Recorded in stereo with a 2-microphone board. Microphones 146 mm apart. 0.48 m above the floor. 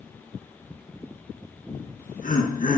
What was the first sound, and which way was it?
Laughter, 60° left (ahead or behind).